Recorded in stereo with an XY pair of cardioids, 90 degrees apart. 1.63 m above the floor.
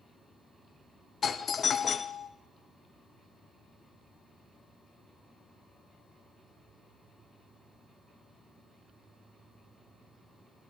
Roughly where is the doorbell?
Ahead left.